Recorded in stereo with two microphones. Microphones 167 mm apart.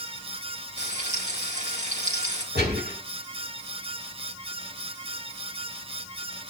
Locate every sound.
0.8 s frying: 45° right (ahead or behind), 5.5 m
2.5 s a gunshot: 85° right, 9.5 m